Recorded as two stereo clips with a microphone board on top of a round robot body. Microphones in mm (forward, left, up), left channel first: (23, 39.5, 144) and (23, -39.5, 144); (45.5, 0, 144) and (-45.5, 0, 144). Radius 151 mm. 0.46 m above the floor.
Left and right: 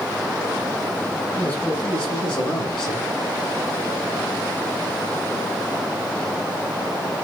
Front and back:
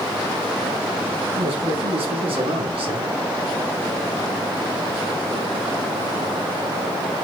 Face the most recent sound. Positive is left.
turn(degrees=170)